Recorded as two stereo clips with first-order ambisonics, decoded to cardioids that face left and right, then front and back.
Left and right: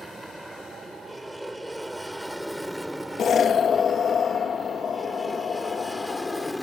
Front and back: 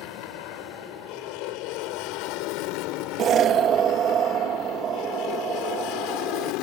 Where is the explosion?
140° left.